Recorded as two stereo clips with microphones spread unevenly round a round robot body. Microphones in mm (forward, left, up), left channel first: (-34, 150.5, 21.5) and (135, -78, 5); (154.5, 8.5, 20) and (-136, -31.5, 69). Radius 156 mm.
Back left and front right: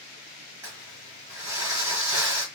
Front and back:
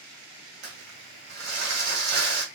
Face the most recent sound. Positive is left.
turn(degrees=-135)